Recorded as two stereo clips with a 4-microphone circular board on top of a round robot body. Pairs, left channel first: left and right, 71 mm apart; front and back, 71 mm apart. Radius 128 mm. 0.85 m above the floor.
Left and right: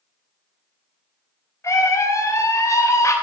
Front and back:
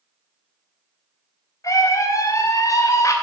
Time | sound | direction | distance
1.6 | a scream | 40° left | 2.5 m